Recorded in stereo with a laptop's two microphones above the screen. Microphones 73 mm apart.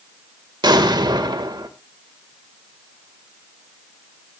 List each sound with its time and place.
0.6 s an explosion: 70° right (ahead or behind), 1.5 m